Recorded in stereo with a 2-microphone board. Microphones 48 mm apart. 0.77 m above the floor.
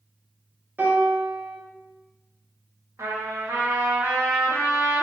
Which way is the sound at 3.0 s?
85° right.